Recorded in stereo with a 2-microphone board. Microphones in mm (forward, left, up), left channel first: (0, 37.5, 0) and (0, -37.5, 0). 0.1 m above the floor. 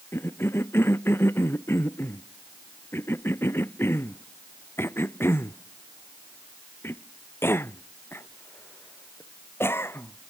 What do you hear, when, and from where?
0.1 s a cough: 30° left (ahead or behind)